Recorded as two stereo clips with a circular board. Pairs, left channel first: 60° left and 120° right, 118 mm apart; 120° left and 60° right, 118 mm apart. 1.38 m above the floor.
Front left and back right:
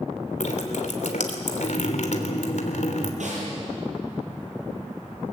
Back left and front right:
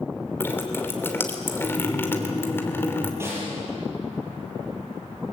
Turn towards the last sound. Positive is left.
turn(degrees=-130)